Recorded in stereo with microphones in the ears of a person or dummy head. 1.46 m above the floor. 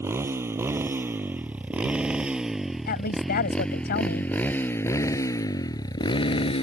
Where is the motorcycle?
15° right (ahead or behind); by 6.6 s 30° left (ahead or behind).